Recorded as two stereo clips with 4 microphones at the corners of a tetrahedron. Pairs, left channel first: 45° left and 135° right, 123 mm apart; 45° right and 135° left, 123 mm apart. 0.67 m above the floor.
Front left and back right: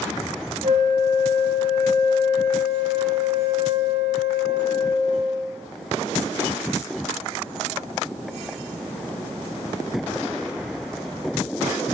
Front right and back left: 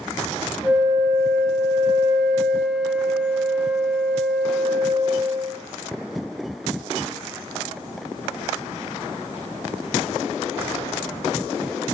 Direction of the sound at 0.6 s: 140° right.